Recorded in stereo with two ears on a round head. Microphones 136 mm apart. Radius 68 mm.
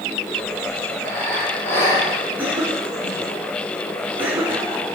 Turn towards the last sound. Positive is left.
turn(degrees=-10)  # may be behind; listen again after turning